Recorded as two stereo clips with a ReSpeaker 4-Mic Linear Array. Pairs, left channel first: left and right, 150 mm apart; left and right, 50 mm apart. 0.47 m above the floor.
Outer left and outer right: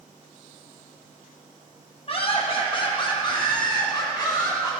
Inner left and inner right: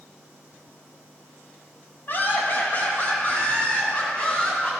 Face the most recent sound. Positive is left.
turn(degrees=25)  # may be behind; listen again after turning